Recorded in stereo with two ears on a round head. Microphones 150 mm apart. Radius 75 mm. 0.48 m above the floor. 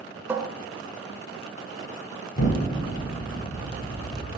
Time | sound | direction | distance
0.3 | a cupboard door | 15° right (ahead or behind) | 0.6 m
2.4 | an explosion | 50° left (ahead or behind) | 0.9 m